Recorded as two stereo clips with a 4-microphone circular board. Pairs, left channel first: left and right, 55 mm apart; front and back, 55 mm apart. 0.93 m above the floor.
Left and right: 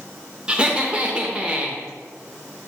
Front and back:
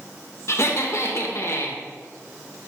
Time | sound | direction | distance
0.5 | laughter | 20° right | 0.7 m